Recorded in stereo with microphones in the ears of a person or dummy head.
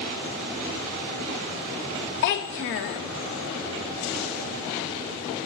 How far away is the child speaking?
About 0.6 m.